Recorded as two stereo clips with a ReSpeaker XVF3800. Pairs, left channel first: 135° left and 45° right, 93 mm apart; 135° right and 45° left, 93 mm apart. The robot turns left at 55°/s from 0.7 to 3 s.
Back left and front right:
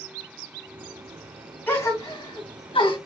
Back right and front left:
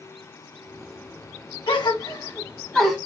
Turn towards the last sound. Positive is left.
turn(degrees=130)